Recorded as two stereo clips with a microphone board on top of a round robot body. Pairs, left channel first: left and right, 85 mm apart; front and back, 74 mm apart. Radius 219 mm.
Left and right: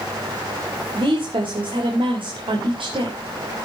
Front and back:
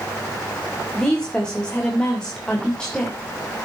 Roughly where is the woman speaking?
Right.